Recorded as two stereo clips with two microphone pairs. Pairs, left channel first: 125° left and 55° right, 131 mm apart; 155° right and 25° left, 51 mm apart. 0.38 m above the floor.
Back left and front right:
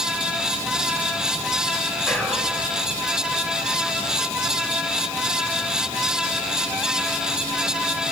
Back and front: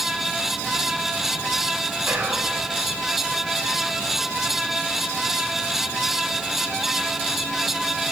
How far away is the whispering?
About 1.7 m.